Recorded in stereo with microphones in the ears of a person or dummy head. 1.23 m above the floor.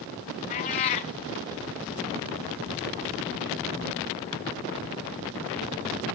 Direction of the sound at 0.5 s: 25° left (ahead or behind).